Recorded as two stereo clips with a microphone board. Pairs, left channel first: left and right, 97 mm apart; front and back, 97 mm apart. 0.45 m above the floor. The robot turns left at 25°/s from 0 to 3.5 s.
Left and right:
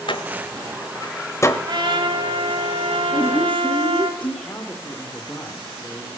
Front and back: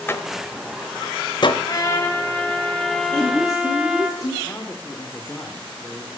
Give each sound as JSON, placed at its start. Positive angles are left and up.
{"t": 0.1, "sound": "a door slam", "azimuth_deg": 65, "distance_m": 1.0}
{"t": 1.7, "sound": "a trumpet", "azimuth_deg": -50, "distance_m": 3.5}
{"t": 3.1, "sound": "a woman speaking", "azimuth_deg": 65, "distance_m": 9.0}
{"t": 4.4, "sound": "a man speaking", "azimuth_deg": 50, "distance_m": 1.2}